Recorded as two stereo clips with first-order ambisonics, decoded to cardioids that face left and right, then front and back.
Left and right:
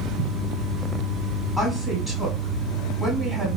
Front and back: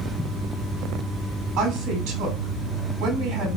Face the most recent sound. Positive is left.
turn(degrees=170)